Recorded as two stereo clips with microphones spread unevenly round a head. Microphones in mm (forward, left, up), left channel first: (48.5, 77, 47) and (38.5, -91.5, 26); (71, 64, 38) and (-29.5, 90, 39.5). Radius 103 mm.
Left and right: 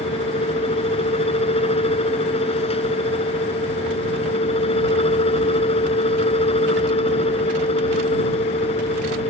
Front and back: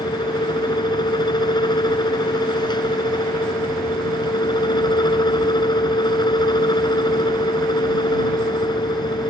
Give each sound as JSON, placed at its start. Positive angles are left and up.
{"t": 0.0, "sound": "a fan", "azimuth_deg": 30}